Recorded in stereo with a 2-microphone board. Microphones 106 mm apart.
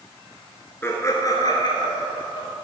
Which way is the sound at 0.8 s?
25° left (ahead or behind).